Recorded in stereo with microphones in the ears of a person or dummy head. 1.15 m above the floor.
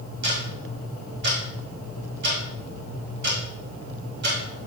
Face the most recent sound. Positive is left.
turn(degrees=-55)  # may be behind; listen again after turning